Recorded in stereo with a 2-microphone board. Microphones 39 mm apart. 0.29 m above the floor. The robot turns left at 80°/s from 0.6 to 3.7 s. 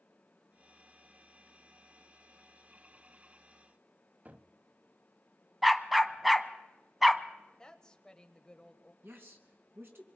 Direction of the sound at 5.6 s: 5° right (ahead or behind).